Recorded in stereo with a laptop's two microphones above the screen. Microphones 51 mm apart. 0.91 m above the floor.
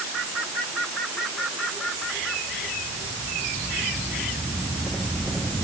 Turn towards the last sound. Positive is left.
No sound to turn to.